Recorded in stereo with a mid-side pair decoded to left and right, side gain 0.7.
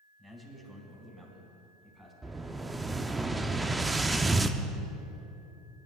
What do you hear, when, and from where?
0.2 s a man speaking: 15° right, 5 m
2.2 s an explosion: 15° right, 0.7 m